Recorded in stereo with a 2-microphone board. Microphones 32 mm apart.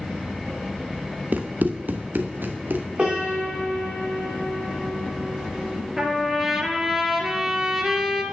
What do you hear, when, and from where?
1.3 s running footsteps: 60° right (ahead or behind), 1.1 m; by 2.9 s 75° right (ahead or behind), 2 m
3.0 s a piano: 35° right (ahead or behind), 5 m
6.0 s a trumpet: 15° right (ahead or behind), 1.9 m